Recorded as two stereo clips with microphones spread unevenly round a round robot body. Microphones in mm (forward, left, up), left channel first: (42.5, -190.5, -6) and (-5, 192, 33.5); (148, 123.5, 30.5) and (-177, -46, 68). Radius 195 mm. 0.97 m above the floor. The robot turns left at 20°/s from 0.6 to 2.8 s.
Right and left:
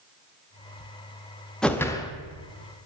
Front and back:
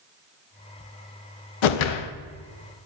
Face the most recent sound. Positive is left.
turn(degrees=-15)